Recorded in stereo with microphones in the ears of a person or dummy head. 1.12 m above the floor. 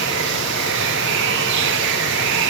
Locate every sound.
0.0 s running water: 65° right (ahead or behind), 1.7 m